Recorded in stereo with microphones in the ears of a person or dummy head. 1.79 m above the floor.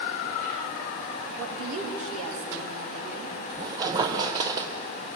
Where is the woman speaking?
85° right, 4 m; by 3.4 s 65° right (ahead or behind), 4.5 m.